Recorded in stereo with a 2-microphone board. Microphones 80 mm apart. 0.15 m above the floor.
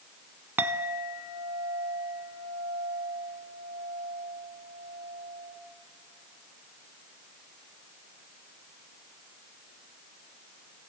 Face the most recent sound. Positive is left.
turn(degrees=-25)  # may be behind; listen again after turning